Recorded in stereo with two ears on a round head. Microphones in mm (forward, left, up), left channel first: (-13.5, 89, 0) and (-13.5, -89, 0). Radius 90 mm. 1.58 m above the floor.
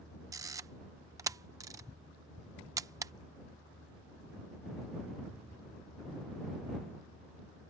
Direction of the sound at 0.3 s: 15° right (ahead or behind).